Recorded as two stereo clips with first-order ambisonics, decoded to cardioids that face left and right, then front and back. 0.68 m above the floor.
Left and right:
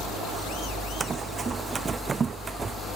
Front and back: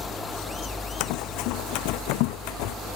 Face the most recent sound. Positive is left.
turn(degrees=-20)